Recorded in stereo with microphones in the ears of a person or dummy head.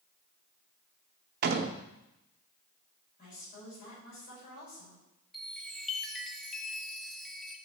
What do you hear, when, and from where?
1.4 s a door slam: 55° right (ahead or behind), 0.8 m
3.2 s a woman speaking: 55° left (ahead or behind), 6 m
5.3 s a chime: centre (ahead or behind), 0.8 m